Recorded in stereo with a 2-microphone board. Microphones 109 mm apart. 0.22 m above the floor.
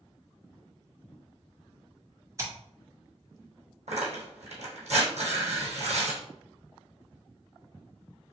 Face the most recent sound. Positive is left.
turn(degrees=-85)